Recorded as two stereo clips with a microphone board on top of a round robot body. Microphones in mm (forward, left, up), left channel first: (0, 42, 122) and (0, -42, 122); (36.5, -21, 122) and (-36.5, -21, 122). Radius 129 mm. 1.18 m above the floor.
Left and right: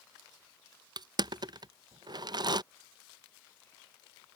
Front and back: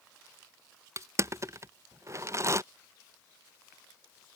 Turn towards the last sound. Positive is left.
turn(degrees=-130)